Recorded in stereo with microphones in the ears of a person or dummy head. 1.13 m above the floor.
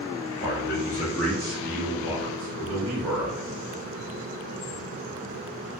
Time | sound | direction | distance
0.4 | a man speaking | 50° left (ahead or behind) | 0.8 m